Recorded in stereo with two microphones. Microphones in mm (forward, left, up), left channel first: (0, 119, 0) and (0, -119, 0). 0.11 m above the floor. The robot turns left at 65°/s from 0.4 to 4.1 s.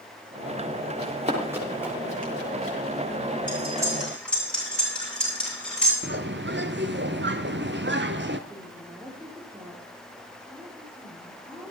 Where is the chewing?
I don't hear chewing.